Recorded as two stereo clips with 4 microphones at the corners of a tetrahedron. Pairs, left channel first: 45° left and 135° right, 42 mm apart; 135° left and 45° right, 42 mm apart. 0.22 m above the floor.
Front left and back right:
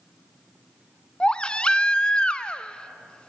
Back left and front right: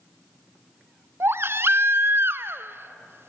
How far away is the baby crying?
About 0.6 m.